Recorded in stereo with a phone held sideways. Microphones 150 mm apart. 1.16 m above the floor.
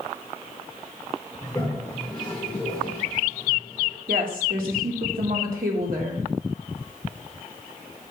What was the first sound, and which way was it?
A toilet flushing, 5° left (ahead or behind).